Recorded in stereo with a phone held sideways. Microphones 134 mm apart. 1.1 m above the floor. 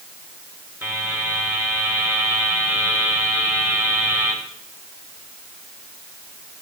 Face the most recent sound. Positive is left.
turn(degrees=-15)  # may be behind; listen again after turning